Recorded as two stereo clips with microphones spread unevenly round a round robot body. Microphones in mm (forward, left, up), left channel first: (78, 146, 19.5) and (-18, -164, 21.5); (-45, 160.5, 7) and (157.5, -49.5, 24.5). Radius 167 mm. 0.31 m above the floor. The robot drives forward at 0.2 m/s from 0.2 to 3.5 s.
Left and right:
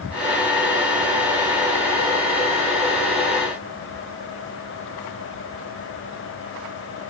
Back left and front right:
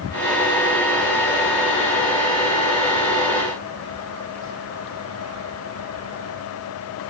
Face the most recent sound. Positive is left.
No sound to turn to.